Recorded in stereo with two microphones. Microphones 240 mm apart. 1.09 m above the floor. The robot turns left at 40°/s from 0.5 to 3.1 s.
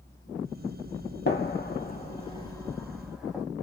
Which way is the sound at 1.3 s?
50° left (ahead or behind).